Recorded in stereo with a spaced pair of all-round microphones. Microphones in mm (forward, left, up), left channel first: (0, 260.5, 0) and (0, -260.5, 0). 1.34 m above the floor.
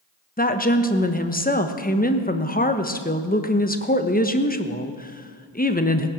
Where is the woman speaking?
15° left (ahead or behind), 1.1 m.